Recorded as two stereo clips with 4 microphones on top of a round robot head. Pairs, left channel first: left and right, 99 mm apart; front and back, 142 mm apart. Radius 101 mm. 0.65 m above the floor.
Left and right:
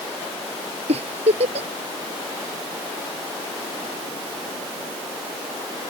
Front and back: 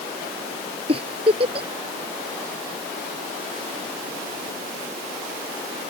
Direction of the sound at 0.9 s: 120° right.